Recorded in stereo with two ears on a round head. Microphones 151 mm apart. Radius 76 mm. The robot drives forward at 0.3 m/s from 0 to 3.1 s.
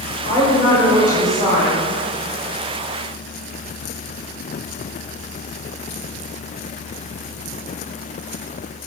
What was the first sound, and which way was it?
A woman speaking, 35° right (ahead or behind).